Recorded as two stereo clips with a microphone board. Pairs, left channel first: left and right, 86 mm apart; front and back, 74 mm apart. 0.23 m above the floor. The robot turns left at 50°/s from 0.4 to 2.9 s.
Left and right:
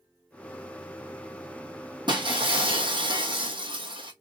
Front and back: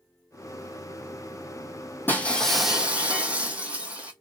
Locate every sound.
2.1 s breaking glass: 65° right, 0.9 m; by 4.1 s 105° right, 0.9 m